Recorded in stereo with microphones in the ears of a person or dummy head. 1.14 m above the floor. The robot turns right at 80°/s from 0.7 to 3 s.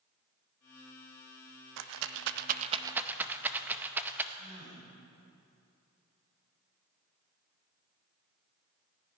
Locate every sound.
1.8 s a rattle: 65° right (ahead or behind), 0.6 m; by 4.2 s 5° right (ahead or behind), 0.6 m
4.3 s a gasp: 35° right (ahead or behind), 4 m